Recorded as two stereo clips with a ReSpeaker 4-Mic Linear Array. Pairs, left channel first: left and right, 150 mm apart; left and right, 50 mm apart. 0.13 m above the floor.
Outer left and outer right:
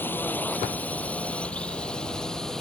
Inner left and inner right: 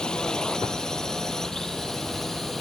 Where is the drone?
15° left (ahead or behind); by 2.6 s 5° left (ahead or behind).